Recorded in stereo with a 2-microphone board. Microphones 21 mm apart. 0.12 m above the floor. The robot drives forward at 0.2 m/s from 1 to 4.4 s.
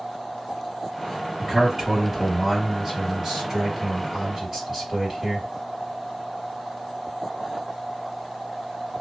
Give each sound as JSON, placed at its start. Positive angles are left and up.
{"t": 1.4, "sound": "a man speaking", "side_deg": -30, "distance_m": 2.0}